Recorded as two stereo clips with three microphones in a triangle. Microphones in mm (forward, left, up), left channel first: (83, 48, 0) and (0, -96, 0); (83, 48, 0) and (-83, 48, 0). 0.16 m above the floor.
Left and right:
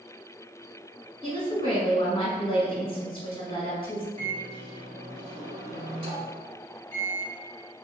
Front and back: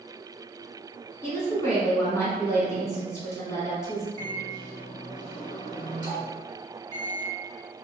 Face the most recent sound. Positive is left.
turn(degrees=-135)